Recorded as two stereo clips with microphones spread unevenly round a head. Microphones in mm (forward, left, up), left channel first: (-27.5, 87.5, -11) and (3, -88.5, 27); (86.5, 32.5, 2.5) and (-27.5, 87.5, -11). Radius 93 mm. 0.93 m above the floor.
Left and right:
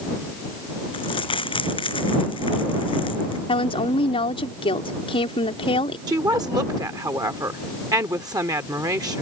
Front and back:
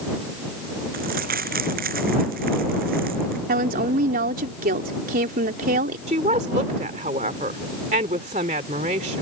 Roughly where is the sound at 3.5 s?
Behind.